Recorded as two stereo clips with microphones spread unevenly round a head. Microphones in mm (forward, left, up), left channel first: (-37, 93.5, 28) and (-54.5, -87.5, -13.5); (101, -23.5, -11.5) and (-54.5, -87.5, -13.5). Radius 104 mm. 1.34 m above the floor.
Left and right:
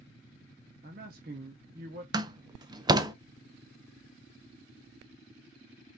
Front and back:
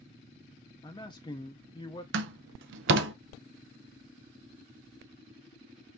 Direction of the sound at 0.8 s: 40° right.